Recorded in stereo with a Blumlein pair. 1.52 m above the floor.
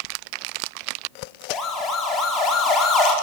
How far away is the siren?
About 5.5 m.